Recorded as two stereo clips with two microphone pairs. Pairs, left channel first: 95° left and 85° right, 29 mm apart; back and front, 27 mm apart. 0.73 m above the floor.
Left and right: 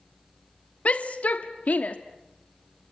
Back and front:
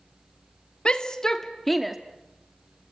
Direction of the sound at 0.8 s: 125° left.